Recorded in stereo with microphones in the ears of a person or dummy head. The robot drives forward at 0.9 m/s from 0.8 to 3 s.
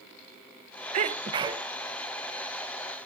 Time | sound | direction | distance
0.9 | a sneeze | 35° right (ahead or behind) | 0.6 m